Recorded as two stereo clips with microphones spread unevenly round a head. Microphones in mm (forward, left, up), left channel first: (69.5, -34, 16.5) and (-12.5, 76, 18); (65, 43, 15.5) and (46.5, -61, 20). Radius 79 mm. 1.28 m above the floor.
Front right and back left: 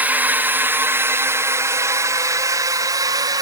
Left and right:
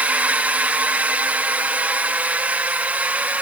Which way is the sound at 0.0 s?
165° right.